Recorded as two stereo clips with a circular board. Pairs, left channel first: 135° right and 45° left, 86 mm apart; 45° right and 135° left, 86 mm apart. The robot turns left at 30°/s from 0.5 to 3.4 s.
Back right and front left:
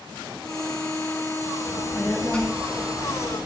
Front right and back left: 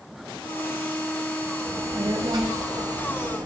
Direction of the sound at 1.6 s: 170° left.